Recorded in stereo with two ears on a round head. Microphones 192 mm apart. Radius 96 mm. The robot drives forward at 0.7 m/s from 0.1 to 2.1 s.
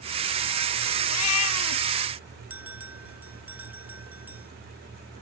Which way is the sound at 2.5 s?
10° right (ahead or behind).